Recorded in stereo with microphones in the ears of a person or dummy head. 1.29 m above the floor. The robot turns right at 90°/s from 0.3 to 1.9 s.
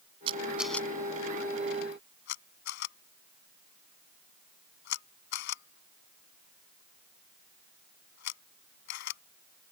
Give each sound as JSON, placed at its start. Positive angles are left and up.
{"t": 0.3, "sound": "a camera shutter", "side_deg": -35}